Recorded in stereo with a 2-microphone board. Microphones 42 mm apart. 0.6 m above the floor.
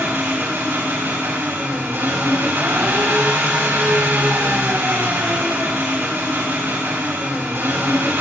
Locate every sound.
0.0 s an engine running: 75° right (ahead or behind), 3 m